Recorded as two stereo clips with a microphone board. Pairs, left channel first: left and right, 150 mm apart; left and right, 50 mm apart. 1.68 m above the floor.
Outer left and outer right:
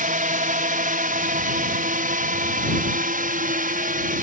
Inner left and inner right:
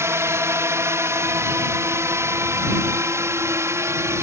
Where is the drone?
65° right (ahead or behind); by 4.2 s 70° right (ahead or behind).